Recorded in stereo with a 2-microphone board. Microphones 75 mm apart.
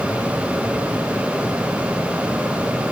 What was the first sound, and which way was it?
Only background noise.